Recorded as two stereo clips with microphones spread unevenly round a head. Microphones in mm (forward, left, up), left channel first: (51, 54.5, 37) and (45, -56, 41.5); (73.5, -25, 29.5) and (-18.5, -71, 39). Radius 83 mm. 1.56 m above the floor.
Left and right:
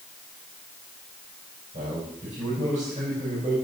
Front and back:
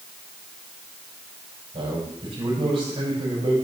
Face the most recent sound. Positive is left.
turn(degrees=-125)